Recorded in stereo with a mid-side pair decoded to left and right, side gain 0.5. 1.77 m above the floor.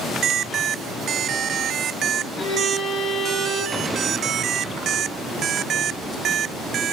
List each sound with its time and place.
2.4 s a violin: 35° left, 6 m
3.7 s an explosion: 20° right, 8.5 m